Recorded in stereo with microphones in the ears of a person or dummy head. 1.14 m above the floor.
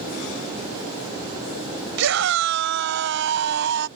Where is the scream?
70° right (ahead or behind); by 3.9 s 65° right (ahead or behind).